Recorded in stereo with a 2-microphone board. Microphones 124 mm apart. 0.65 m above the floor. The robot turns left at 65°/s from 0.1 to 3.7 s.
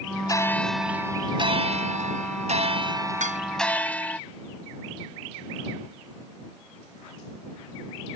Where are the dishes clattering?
80° right; by 3.4 s 85° right.